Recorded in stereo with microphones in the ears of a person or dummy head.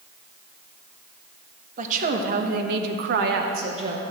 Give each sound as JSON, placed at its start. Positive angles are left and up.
{"t": 1.8, "sound": "a woman speaking", "side_deg": -45, "distance_m": 1.4}